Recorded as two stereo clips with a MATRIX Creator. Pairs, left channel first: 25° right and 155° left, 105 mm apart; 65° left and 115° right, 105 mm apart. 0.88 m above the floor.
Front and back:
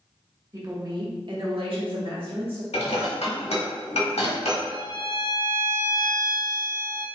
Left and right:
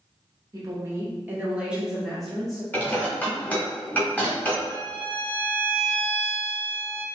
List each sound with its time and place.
0.5 s a woman speaking: 155° right, 1.3 m; by 2.6 s 150° left, 1.8 m
2.7 s dishes clattering: 5° right, 1.3 m
4.7 s a violin: 5° right, 1.0 m